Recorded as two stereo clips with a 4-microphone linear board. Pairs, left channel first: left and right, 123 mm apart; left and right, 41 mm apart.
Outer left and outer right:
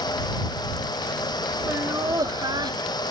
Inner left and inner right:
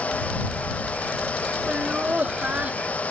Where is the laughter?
25° right (ahead or behind); by 3.0 s 40° right (ahead or behind).